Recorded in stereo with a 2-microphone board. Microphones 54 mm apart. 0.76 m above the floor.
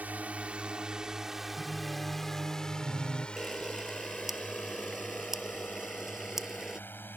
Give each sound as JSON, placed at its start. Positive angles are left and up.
{"t": 0.0, "sound": "a drone", "side_deg": -30}
{"t": 1.6, "sound": "singing", "side_deg": -65}
{"t": 3.4, "sound": "a camera shutter", "side_deg": -5}